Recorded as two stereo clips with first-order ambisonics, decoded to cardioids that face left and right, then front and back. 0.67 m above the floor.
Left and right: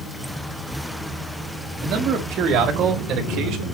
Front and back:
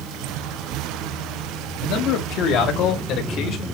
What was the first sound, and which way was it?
A man speaking, 40° right.